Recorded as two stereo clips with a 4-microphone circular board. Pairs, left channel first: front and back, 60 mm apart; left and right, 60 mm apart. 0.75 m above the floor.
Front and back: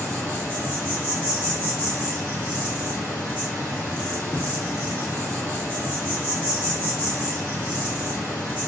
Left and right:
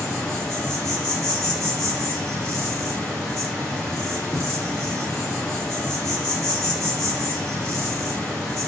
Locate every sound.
0.0 s an insect: 60° right, 1.3 m